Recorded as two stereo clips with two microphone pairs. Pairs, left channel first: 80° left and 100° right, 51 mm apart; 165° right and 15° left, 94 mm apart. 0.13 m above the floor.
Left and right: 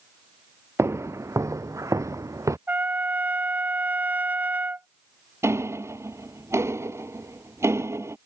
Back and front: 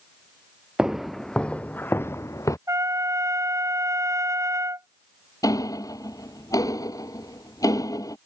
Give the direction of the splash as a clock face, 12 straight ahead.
I don't hear a splash.